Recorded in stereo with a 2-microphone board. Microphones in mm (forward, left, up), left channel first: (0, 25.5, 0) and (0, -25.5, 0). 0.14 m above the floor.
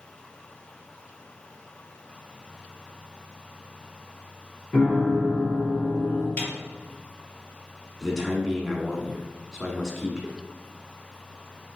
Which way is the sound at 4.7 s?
20° left (ahead or behind).